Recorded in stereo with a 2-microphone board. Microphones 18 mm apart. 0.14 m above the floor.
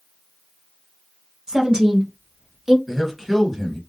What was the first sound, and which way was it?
A woman speaking, 30° right (ahead or behind).